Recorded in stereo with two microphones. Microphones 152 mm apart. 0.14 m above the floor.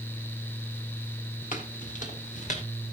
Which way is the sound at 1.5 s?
60° left (ahead or behind).